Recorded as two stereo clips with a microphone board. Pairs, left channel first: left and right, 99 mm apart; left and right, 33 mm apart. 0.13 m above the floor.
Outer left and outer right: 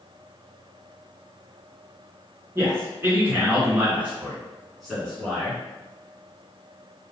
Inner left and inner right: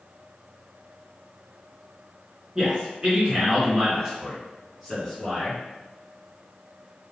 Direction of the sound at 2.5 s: 30° right (ahead or behind).